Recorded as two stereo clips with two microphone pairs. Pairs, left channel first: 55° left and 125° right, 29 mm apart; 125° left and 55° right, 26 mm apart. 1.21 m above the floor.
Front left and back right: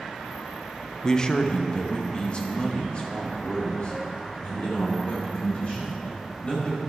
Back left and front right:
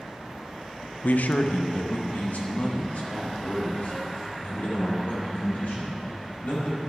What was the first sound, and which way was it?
A man speaking, 125° left.